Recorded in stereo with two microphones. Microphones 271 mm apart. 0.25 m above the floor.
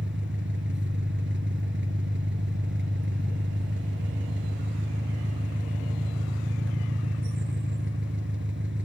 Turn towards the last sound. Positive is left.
turn(degrees=-45)  # may be behind; listen again after turning